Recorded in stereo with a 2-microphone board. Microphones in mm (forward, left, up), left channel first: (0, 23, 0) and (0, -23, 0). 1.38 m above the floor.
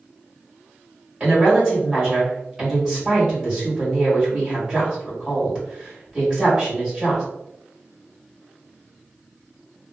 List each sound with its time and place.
1.2 s a woman speaking: 25° right (ahead or behind), 1.8 m